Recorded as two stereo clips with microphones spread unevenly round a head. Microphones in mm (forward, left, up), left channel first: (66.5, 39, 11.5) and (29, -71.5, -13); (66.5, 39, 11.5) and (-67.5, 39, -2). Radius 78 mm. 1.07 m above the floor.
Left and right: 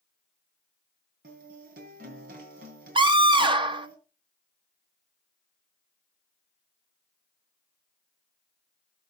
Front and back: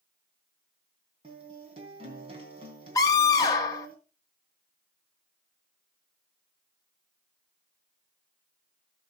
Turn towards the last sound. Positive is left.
turn(degrees=-70)